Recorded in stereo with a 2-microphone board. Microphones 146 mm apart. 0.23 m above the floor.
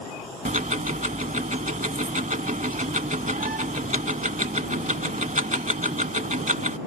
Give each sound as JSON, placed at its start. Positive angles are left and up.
{"t": 0.5, "sound": "ticking", "side_deg": -60}